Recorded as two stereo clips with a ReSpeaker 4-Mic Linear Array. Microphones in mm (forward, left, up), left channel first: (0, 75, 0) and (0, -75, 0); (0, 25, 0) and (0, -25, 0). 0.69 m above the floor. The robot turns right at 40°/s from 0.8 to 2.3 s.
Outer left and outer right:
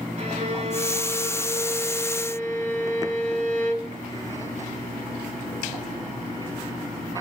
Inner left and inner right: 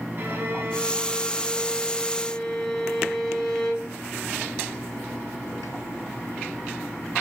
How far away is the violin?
About 3 m.